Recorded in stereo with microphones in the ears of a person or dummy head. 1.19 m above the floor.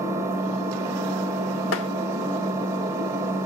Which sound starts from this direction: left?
Tapping, at 1.7 s.